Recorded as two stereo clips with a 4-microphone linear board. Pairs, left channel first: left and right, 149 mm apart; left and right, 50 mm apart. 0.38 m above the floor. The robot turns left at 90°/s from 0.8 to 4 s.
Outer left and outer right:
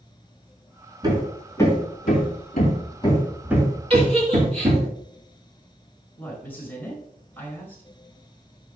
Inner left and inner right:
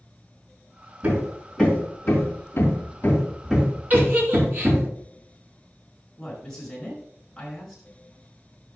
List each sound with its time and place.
1.0 s hammering: 30° right (ahead or behind), 3.5 m; by 4.9 s 55° right (ahead or behind), 3.5 m
3.9 s a giggle: 40° right (ahead or behind), 3 m; by 4.8 s 50° right (ahead or behind), 3 m
6.2 s a woman speaking: 15° left (ahead or behind), 5 m